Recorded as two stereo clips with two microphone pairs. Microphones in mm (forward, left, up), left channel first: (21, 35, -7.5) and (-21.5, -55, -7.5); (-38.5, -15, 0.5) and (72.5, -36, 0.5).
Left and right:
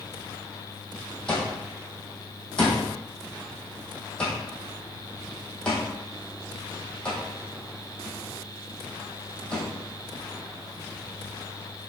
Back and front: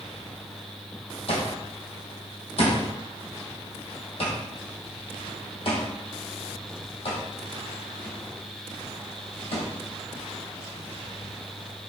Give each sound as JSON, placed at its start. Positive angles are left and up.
{"t": 1.3, "sound": "an alarm clock", "azimuth_deg": 145, "distance_m": 2.5}